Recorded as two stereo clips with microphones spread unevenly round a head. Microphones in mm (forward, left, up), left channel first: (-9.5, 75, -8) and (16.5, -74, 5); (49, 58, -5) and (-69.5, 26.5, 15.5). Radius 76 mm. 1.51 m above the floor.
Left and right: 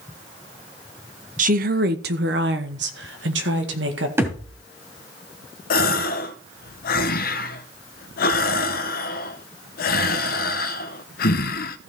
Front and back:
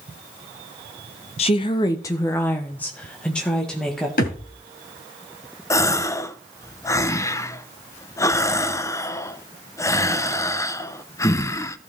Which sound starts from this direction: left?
A gasp, at 5.7 s.